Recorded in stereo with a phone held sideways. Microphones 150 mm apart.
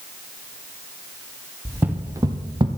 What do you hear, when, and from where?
1.6 s footsteps: 10° right (ahead or behind), 1.6 m; by 2.7 s 35° right (ahead or behind), 1.1 m